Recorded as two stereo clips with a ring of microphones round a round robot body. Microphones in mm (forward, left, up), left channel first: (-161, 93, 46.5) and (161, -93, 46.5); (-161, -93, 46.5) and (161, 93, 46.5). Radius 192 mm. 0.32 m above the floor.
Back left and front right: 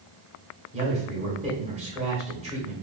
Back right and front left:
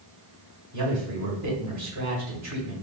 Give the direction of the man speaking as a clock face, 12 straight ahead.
11 o'clock.